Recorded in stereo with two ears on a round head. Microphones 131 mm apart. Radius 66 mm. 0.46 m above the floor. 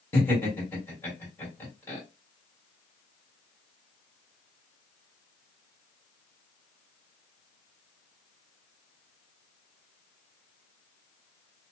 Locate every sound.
0.1 s laughter: 15° left (ahead or behind), 1.8 m